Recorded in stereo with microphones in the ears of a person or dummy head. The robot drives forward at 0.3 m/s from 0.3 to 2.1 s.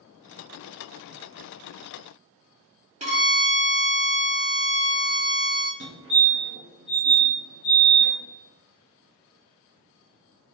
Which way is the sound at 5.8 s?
60° right (ahead or behind).